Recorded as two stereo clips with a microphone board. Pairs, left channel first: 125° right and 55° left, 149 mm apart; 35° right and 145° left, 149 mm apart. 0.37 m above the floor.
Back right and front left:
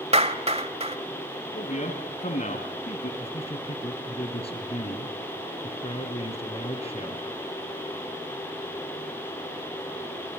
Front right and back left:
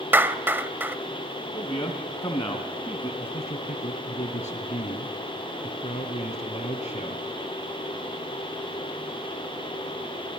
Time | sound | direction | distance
0.1 | a clap | 75° left | 1.1 m
1.5 | a man speaking | 100° right | 2.5 m
3.2 | a man speaking | 80° right | 3 m